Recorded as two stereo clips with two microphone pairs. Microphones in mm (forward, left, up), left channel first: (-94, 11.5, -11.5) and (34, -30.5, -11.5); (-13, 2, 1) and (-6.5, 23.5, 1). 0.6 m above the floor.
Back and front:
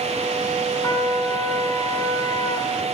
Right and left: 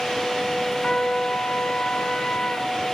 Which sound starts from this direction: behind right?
A trumpet, at 0.8 s.